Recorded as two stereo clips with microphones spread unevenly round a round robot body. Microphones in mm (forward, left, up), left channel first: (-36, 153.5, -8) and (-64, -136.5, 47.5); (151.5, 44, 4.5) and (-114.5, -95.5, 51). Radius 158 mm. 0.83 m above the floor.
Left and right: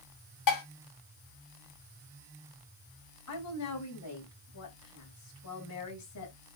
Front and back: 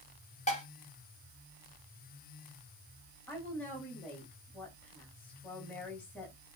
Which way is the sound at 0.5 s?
95° left.